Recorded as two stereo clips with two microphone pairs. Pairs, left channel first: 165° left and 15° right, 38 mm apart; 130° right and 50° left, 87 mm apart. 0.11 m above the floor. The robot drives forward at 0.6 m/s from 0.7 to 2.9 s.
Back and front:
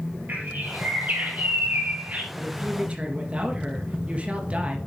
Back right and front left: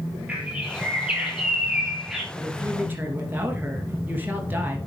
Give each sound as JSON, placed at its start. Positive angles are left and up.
{"t": 0.3, "sound": "a bird", "azimuth_deg": -20, "distance_m": 3.5}
{"t": 2.3, "sound": "a woman speaking", "azimuth_deg": 0, "distance_m": 2.0}